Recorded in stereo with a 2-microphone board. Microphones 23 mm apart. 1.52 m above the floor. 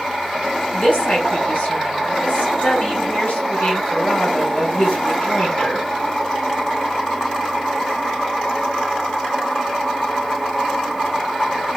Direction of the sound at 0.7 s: 75° left (ahead or behind).